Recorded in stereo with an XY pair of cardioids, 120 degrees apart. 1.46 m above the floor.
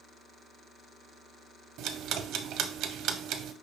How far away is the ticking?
About 0.6 m.